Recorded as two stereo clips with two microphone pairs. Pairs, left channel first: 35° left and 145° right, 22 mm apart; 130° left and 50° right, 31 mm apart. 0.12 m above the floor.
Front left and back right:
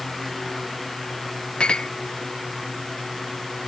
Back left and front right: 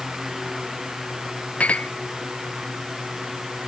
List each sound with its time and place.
1.6 s a clink: 80° left